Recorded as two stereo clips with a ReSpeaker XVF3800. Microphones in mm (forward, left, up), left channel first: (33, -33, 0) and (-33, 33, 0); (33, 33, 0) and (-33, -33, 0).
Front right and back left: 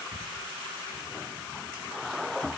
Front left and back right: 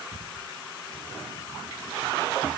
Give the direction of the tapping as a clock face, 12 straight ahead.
No tapping in this recording.